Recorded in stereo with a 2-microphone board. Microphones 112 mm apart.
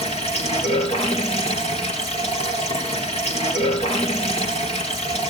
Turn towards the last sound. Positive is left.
turn(degrees=70)  # may be behind; listen again after turning